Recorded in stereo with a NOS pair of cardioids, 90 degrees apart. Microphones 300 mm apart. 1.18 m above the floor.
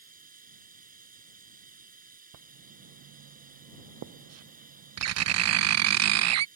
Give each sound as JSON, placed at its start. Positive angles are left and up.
{"t": 0.0, "sound": "running water", "azimuth_deg": -30}
{"t": 2.3, "sound": "writing", "azimuth_deg": -60}